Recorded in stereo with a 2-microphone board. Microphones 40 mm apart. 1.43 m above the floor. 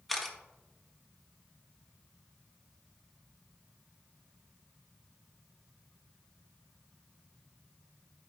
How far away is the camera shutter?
About 1.1 m.